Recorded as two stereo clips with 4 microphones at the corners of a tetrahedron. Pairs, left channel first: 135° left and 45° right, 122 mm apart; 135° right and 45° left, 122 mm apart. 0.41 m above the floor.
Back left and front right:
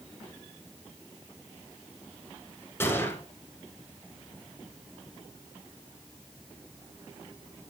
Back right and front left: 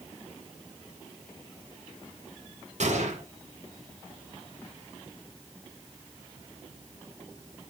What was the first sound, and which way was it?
A gunshot, 65° left.